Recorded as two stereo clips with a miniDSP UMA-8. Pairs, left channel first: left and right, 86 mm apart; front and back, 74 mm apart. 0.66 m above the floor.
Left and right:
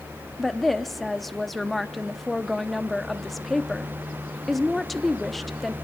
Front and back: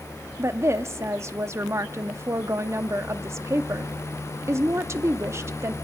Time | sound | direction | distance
0.4 | a woman speaking | 175° left | 0.7 m